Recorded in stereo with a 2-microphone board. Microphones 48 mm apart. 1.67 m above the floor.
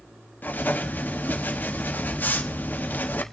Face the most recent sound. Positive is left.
turn(degrees=45)  # may be behind; listen again after turning